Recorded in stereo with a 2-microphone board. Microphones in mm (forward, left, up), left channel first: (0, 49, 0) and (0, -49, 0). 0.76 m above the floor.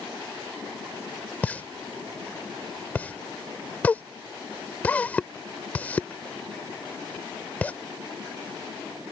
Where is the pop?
15° left (ahead or behind).